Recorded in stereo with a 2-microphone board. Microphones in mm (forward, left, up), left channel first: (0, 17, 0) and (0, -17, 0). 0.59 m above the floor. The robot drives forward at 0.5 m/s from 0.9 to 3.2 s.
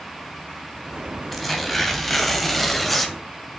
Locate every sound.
1.3 s tearing paper: 5° left (ahead or behind), 3 m